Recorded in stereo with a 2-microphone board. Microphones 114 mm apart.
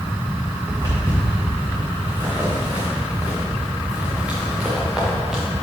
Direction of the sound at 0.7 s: 35° right (ahead or behind).